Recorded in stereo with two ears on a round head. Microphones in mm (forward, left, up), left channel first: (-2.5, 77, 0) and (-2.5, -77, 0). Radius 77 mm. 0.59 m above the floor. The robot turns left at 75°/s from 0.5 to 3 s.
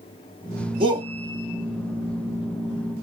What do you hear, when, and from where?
0.8 s a shout: 30° right (ahead or behind), 0.7 m; by 1.1 s 20° right (ahead or behind), 0.7 m